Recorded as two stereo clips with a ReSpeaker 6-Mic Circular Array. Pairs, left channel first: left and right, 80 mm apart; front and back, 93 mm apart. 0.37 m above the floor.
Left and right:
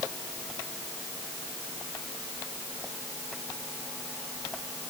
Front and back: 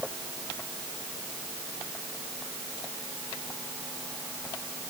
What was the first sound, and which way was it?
Only background noise.